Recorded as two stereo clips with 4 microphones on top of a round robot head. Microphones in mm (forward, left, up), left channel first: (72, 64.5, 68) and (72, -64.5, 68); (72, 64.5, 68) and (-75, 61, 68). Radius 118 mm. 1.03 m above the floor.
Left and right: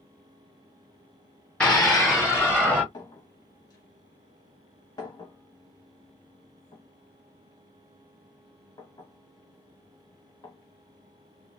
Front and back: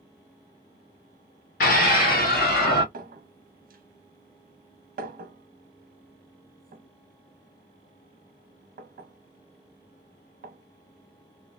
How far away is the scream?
About 0.8 m.